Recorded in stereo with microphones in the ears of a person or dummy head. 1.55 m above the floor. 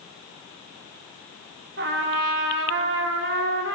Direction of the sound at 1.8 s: 70° right (ahead or behind).